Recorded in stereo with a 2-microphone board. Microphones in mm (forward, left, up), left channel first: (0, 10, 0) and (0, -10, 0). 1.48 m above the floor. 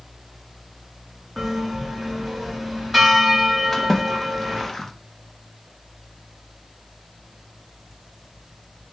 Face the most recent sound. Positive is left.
turn(degrees=10)  # may be behind; listen again after turning